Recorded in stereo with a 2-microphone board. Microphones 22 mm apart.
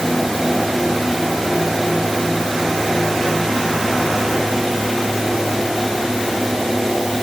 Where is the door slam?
No door slam in this recording.